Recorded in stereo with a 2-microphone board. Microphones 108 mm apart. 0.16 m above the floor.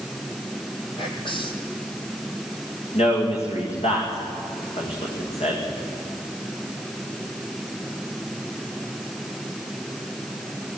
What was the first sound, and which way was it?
Whispering, 50° left (ahead or behind).